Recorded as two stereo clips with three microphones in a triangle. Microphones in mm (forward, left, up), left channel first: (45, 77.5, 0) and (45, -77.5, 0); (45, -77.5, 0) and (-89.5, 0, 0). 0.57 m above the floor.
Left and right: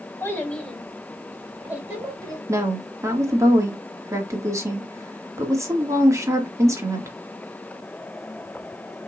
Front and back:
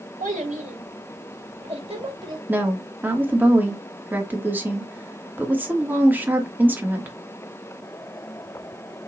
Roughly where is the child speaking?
Behind.